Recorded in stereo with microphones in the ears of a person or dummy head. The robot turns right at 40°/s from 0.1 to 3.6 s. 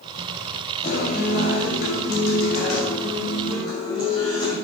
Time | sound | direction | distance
0.8 | a guitar | 40° left | 6.5 m